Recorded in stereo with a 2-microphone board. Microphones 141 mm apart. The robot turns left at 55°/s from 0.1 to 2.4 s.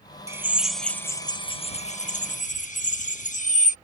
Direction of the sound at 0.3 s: 155° right.